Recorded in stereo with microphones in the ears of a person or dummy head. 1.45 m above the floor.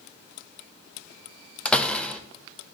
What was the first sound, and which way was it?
A door slam, 10° left (ahead or behind).